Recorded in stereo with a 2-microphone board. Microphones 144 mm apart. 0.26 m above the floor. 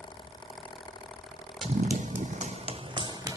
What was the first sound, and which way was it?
Running footsteps, 55° right (ahead or behind).